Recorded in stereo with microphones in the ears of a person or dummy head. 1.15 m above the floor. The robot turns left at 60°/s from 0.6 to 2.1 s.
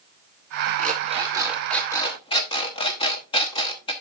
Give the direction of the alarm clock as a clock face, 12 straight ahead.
4 o'clock.